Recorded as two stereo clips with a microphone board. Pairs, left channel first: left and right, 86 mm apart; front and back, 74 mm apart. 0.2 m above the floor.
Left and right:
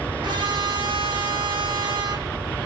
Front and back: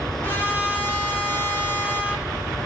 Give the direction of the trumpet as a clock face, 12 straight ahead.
2 o'clock.